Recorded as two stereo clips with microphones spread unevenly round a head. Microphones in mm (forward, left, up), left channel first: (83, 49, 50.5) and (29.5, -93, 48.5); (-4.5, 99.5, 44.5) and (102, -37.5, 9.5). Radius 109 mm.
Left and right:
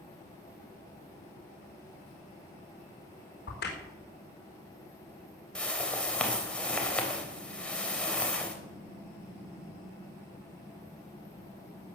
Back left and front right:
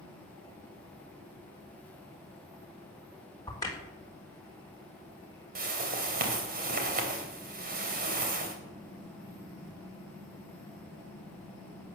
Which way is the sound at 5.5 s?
15° right.